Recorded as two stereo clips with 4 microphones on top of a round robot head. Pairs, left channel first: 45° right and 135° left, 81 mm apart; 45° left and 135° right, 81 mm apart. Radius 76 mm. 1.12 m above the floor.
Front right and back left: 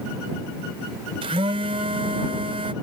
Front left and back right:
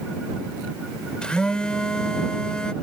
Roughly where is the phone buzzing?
Behind left.